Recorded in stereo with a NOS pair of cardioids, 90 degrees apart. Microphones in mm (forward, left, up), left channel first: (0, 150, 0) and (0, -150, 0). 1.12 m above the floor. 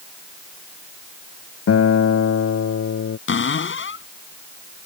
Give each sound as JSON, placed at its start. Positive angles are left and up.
{"t": 1.7, "sound": "a guitar", "azimuth_deg": 50}
{"t": 3.3, "sound": "a cupboard door", "azimuth_deg": 40}